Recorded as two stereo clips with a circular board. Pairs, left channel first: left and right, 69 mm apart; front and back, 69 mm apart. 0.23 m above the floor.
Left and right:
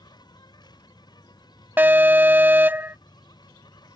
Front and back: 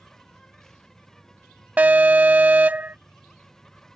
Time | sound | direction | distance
0.0 | an insect | 85° left | ?
1.8 | an alarm | 130° right | ?